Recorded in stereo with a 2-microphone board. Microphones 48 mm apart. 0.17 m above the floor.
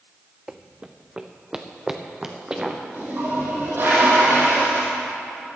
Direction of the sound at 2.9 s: 45° right (ahead or behind).